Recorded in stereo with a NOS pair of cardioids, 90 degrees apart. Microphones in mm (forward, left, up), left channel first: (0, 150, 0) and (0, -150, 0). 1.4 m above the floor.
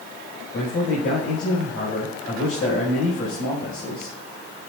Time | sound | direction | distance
0.5 | a man speaking | 45° left | 6 m